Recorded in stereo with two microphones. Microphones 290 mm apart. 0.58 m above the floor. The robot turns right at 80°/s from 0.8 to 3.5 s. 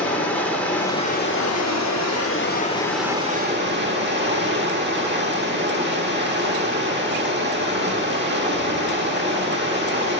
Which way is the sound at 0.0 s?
5° left.